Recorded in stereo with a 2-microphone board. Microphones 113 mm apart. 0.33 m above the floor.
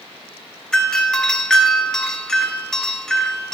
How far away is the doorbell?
About 1.9 m.